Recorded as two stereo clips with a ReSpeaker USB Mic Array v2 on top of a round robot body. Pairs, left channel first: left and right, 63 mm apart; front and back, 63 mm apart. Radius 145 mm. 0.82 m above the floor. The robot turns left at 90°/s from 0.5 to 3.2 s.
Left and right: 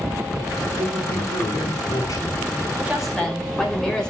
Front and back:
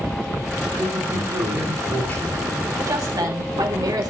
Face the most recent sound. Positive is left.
turn(degrees=170)